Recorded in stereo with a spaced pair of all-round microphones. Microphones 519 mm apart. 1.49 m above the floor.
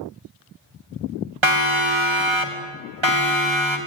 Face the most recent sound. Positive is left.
turn(degrees=-60)  # may be behind; listen again after turning